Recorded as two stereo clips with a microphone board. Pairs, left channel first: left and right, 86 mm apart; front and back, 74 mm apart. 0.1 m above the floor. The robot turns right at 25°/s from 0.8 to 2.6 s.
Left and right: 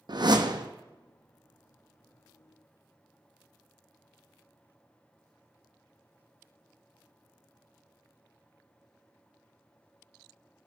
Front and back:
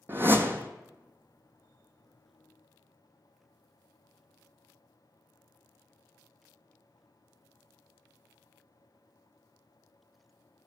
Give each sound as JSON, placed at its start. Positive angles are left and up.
{"t": 0.1, "sound": "a whoosh", "azimuth_deg": -120, "distance_m": 0.9}